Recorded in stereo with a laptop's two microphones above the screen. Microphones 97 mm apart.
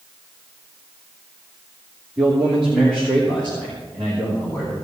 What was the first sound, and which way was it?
A man speaking, 10° right (ahead or behind).